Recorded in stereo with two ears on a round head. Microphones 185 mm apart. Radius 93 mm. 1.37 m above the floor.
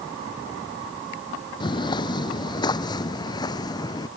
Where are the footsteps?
25° left (ahead or behind); by 4.1 s 20° left (ahead or behind).